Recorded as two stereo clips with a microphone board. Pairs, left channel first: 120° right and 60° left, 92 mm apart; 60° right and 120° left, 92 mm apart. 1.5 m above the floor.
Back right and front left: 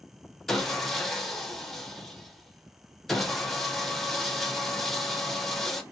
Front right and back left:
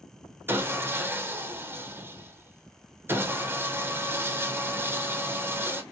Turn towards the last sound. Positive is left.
turn(degrees=155)